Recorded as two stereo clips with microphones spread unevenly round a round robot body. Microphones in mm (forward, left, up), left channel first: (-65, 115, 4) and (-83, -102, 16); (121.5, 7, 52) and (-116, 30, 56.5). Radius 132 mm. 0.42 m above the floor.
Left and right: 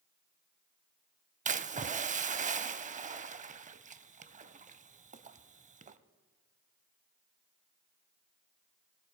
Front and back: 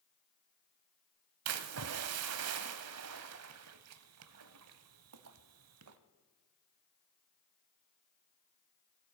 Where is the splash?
155° right, 0.6 m.